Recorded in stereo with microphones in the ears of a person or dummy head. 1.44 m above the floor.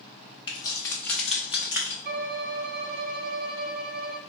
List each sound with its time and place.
0.5 s keys jangling: 25° left (ahead or behind), 1.1 m; by 1.9 s 25° right (ahead or behind), 1.0 m
2.0 s a violin: 40° right (ahead or behind), 0.6 m